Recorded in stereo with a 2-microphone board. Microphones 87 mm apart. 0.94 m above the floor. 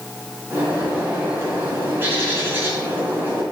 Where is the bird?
25° right (ahead or behind), 2.5 m.